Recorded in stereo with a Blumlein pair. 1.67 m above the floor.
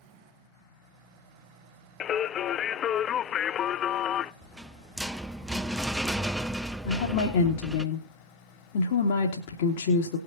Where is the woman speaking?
55° left, 2.5 m.